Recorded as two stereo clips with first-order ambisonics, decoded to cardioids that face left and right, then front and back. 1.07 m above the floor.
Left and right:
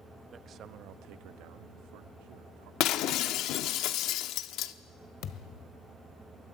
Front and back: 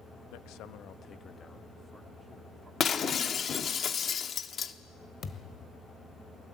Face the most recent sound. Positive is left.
turn(degrees=55)